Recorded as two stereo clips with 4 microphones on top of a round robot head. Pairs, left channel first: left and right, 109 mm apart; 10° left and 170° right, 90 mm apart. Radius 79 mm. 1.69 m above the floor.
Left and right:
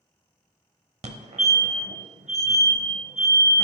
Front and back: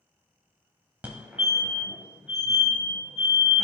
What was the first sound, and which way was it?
A fire alarm, 100° right.